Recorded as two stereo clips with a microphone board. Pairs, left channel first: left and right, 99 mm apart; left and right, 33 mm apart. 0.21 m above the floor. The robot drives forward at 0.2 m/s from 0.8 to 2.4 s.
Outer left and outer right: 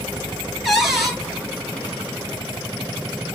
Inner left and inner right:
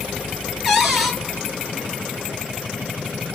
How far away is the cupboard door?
About 1.2 m.